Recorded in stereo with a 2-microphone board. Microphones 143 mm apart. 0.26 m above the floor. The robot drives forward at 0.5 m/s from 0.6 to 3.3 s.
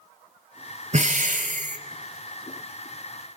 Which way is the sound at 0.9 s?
55° right (ahead or behind).